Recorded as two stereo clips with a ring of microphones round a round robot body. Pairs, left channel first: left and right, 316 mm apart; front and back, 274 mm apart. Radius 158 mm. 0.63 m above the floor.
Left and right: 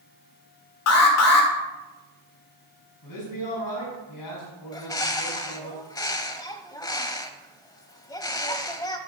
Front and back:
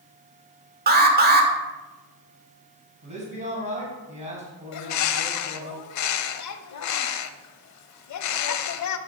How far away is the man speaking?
About 5 m.